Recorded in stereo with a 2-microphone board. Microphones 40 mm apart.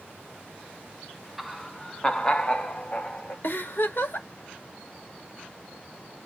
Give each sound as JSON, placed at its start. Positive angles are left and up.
{"t": 1.4, "sound": "laughter", "side_deg": -5, "distance_m": 0.5}
{"t": 3.4, "sound": "a giggle", "side_deg": 55, "distance_m": 1.0}